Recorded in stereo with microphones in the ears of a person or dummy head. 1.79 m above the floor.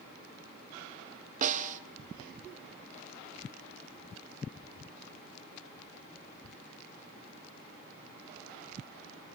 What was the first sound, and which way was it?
A snare drum, 40° right (ahead or behind).